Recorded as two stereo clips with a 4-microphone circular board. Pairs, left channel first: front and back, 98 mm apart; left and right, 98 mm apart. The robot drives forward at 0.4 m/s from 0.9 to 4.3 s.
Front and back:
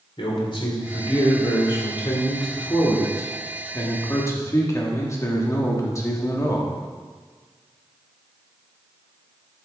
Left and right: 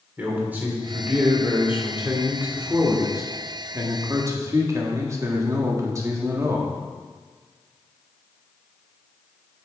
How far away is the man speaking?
About 2.5 m.